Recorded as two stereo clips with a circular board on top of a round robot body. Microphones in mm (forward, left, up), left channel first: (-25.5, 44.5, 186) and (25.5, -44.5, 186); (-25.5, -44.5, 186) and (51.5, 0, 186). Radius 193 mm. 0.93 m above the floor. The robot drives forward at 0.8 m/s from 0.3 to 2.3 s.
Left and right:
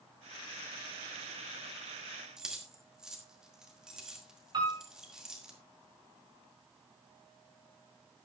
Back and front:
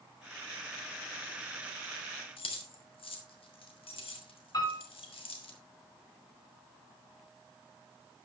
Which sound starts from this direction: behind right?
Keys jangling, at 2.4 s.